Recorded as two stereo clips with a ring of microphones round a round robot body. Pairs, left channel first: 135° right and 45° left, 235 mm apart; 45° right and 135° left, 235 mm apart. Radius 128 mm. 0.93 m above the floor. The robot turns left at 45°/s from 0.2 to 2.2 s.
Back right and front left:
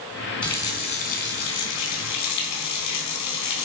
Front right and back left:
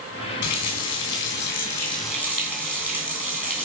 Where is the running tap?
50° right, 2.5 m; by 3.7 s 130° right, 2.5 m.